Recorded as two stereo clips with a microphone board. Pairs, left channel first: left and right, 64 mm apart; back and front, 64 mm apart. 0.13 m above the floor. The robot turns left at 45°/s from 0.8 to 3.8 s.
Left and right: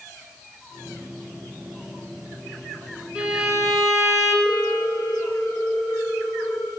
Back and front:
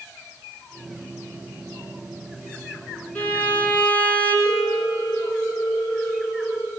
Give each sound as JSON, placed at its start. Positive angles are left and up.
{"t": 3.1, "sound": "a violin", "azimuth_deg": -150, "distance_m": 1.8}
{"t": 4.5, "sound": "a ringtone", "azimuth_deg": 135, "distance_m": 5.0}